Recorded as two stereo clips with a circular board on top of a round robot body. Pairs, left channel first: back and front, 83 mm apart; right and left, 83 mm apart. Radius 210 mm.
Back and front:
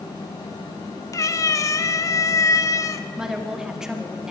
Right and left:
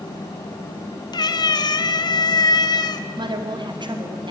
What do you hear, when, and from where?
1.1 s a cat meowing: 130° right, 0.8 m
3.2 s a woman speaking: 80° left, 2.0 m